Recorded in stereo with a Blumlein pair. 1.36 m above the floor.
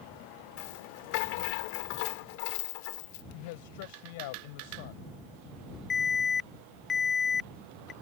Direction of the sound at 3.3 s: 50° left.